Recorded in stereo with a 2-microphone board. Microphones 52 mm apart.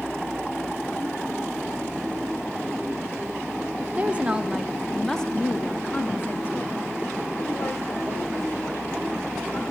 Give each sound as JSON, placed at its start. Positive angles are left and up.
{"t": 3.8, "sound": "a woman speaking", "side_deg": -30, "distance_m": 1.4}